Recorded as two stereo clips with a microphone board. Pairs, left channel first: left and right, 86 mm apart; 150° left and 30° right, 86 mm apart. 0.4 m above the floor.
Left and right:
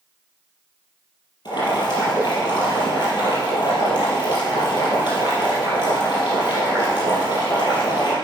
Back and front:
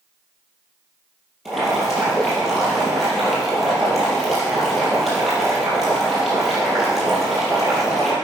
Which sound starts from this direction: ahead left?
Boiling, at 1.4 s.